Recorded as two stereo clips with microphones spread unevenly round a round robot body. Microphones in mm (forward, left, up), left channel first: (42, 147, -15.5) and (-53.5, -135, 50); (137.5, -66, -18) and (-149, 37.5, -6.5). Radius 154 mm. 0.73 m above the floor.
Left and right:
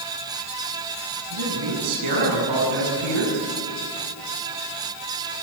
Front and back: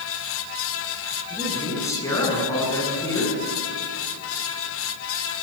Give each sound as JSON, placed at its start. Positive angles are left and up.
{"t": 1.3, "sound": "a man speaking", "azimuth_deg": -100, "distance_m": 8.0}